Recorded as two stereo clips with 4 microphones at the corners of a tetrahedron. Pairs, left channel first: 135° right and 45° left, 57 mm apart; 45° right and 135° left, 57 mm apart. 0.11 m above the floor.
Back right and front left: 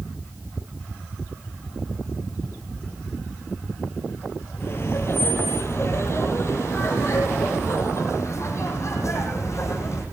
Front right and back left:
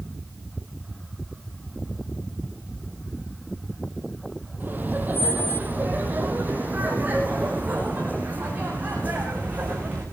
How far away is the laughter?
About 3 m.